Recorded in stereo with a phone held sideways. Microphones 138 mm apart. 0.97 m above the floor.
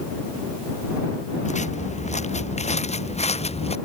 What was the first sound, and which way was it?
Footsteps, 60° left (ahead or behind).